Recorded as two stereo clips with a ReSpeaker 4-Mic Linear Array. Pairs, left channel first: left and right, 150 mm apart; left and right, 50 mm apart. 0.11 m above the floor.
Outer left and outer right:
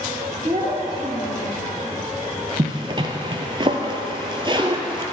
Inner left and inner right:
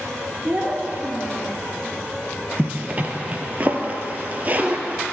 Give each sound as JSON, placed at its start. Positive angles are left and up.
{"t": 0.4, "sound": "a child speaking", "side_deg": -35, "distance_m": 1.6}
{"t": 2.6, "sound": "a zipper", "side_deg": -35, "distance_m": 0.6}